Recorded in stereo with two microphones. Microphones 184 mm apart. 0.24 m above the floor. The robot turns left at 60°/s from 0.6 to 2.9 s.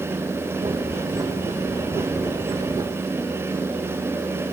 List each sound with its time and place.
Only background noise.